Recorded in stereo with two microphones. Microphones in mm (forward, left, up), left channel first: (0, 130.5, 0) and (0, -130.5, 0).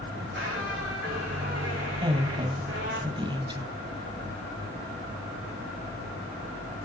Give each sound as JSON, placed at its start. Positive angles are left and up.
{"t": 0.1, "sound": "a squeak", "side_deg": -45, "distance_m": 2.0}
{"t": 2.0, "sound": "a woman speaking", "side_deg": -20, "distance_m": 1.0}